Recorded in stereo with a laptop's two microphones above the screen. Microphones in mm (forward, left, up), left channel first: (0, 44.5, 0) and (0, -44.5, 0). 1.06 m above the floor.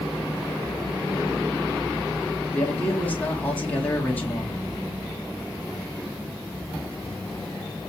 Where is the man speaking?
15° left (ahead or behind), 2.0 m.